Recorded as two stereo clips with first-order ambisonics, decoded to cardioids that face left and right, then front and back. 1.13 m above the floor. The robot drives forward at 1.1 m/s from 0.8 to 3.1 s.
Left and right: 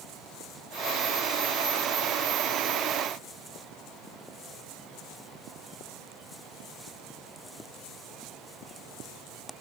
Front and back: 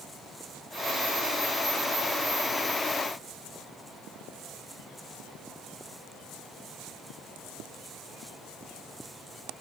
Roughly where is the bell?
No bell in this recording.